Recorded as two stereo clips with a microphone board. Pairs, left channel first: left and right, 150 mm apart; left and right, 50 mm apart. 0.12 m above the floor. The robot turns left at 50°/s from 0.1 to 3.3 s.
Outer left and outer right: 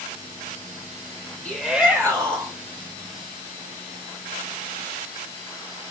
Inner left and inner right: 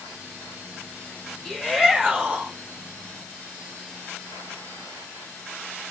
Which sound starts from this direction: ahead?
A shout, at 1.4 s.